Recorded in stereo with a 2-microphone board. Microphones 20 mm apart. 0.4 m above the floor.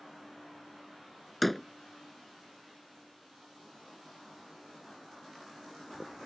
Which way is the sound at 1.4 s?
5° left (ahead or behind).